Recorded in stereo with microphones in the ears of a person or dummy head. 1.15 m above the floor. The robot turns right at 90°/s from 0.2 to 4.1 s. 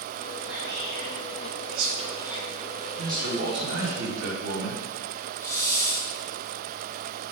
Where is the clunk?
I don't hear a clunk.